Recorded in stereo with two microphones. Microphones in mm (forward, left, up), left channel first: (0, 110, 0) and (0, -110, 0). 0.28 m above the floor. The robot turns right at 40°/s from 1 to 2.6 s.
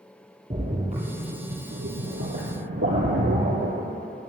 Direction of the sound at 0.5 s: 35° right (ahead or behind).